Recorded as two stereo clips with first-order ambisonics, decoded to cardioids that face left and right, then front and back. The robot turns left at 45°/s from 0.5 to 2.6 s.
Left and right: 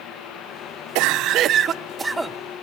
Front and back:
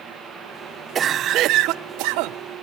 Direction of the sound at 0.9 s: 115° right.